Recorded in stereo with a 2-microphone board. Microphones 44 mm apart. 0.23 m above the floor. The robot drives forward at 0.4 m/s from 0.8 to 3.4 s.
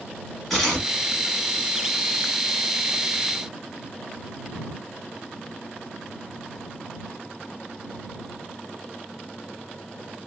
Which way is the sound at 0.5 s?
Centre (ahead or behind).